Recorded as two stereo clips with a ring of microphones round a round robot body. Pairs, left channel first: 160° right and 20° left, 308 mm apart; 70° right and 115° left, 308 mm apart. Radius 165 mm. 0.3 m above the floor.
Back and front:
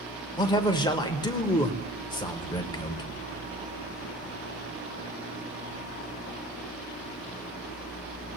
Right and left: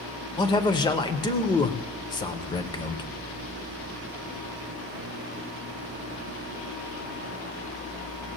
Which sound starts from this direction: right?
A man speaking, at 0.4 s.